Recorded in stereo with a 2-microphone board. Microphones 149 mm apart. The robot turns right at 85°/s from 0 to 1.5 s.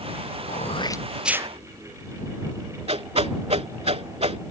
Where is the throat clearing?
120° left; by 1.5 s 155° right.